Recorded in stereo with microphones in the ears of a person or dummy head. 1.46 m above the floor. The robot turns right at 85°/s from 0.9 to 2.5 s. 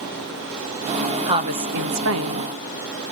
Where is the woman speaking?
160° right, 1.3 m; by 2.5 s 55° right, 1.3 m.